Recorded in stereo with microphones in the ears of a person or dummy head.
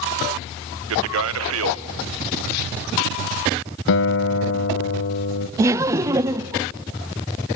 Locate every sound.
0.9 s a man speaking: 75° right (ahead or behind), 1.5 m
3.9 s a guitar: 70° left (ahead or behind), 0.7 m
5.6 s laughter: 15° right (ahead or behind), 0.7 m